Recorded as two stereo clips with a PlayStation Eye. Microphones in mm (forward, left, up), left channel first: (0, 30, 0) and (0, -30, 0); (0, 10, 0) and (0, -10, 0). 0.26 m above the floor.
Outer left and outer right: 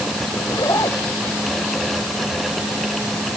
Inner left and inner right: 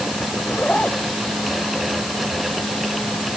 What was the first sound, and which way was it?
A zipper, 80° left.